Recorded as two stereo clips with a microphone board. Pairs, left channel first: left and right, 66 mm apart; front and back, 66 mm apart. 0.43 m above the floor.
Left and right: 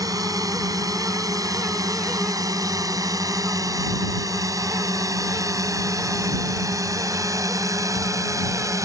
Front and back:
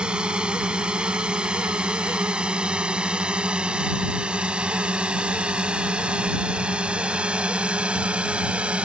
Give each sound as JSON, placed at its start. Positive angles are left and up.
{"t": 0.0, "sound": "a drone", "azimuth_deg": -105}